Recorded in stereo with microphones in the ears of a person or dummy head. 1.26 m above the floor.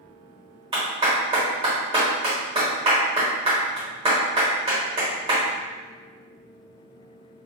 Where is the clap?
25° right (ahead or behind), 1.2 m.